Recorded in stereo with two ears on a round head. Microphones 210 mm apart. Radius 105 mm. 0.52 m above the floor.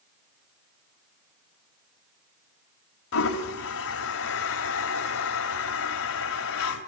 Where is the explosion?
No explosion in this recording.